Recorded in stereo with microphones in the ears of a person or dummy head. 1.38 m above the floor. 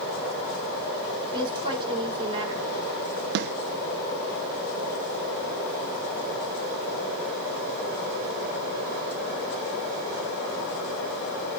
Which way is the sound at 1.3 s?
30° right (ahead or behind).